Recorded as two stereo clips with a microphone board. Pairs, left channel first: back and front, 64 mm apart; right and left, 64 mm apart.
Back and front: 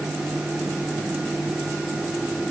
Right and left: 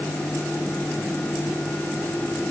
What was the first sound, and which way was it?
Only background noise.